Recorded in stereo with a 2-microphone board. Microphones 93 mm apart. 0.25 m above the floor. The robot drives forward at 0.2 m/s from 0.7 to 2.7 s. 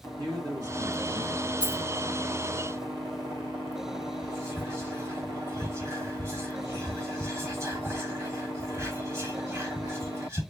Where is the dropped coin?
50° right (ahead or behind), 2.5 m; by 1.8 s 45° right (ahead or behind), 2.5 m.